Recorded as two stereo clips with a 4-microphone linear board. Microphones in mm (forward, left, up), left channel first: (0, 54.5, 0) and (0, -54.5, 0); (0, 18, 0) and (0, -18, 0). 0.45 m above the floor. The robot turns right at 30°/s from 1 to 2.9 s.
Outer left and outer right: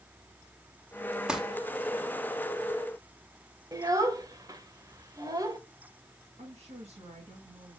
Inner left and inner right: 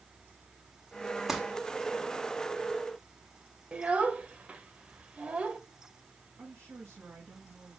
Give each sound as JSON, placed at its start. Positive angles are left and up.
{"t": 1.3, "sound": "crumpling", "side_deg": -10, "distance_m": 1.5}
{"t": 3.7, "sound": "a child speaking", "side_deg": -35, "distance_m": 1.4}
{"t": 6.4, "sound": "a woman speaking", "side_deg": -80, "distance_m": 6.0}